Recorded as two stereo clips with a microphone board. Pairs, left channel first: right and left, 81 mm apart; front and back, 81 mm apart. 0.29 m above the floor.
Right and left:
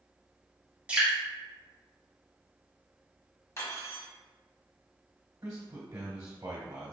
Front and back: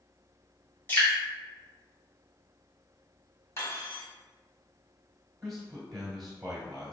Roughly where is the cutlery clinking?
Ahead right.